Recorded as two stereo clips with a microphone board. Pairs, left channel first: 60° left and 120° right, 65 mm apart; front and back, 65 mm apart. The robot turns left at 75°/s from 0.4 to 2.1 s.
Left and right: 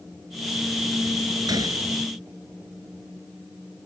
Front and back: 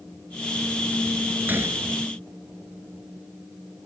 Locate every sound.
1.5 s a gunshot: 115° right; by 1.8 s 145° right